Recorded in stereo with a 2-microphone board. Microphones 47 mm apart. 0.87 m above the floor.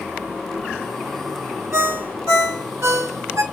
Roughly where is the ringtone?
Right.